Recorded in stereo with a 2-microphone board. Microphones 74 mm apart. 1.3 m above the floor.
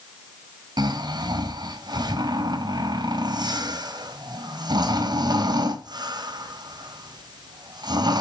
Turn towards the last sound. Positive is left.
turn(degrees=-70)  # may be behind; listen again after turning